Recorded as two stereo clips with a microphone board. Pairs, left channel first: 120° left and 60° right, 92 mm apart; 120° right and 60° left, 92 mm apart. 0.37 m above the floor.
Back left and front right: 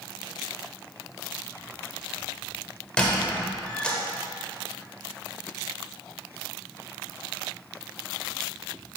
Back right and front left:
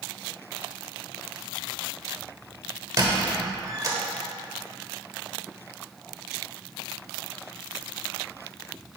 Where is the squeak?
50° left, 1.0 m.